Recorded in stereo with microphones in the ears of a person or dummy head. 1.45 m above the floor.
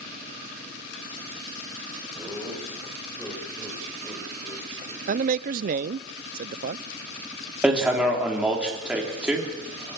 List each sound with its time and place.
2.1 s laughter: centre (ahead or behind), 8 m; by 5.0 s 30° left (ahead or behind), 6.5 m
5.1 s a man speaking: 45° right (ahead or behind), 0.7 m
7.6 s hammering: 5° right (ahead or behind), 4 m